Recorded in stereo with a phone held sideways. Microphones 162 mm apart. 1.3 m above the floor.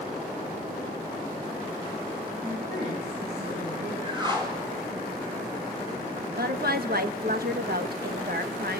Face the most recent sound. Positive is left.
turn(degrees=-70)  # may be behind; listen again after turning